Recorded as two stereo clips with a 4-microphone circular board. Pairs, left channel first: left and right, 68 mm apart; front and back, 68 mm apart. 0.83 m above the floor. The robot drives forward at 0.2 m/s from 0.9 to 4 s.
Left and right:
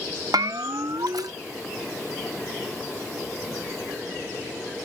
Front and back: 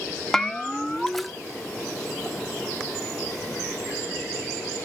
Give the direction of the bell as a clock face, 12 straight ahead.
3 o'clock.